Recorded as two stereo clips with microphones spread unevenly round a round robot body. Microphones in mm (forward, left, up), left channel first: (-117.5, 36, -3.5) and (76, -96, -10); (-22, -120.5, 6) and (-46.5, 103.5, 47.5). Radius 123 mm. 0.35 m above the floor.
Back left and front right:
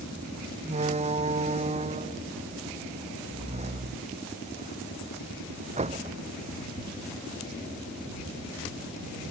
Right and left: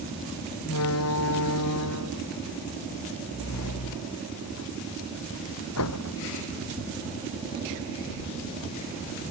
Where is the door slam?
100° right.